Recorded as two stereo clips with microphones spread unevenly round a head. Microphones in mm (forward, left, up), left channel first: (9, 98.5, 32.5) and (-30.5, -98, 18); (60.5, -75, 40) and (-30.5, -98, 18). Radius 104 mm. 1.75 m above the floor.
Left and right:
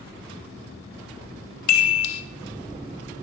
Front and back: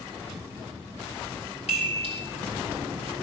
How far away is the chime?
About 0.9 m.